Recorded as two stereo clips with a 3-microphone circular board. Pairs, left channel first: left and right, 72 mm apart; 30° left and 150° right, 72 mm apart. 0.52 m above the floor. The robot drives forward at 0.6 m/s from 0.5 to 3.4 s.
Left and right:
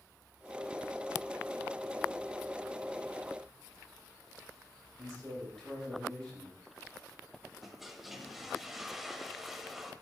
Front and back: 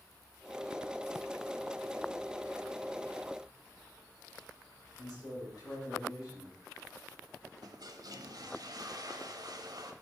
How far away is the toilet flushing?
About 0.6 m.